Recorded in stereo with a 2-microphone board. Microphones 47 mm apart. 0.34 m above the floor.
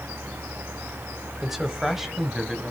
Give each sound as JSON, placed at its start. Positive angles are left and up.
{"t": 1.4, "sound": "a man speaking", "side_deg": -5, "distance_m": 1.3}